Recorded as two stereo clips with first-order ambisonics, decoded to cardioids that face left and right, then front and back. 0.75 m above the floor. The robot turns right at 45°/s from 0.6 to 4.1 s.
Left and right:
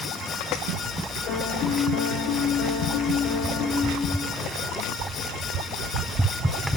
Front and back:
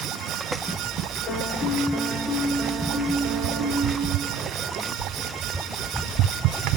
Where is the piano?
50° left, 3.5 m; by 4.3 s straight behind, 3.5 m.